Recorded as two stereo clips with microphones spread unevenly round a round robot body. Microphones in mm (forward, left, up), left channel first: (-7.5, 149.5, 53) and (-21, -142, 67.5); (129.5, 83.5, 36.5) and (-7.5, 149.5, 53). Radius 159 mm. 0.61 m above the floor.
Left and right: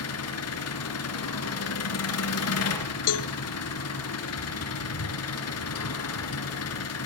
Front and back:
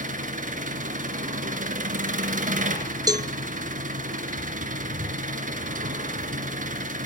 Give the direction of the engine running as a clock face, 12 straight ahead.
8 o'clock.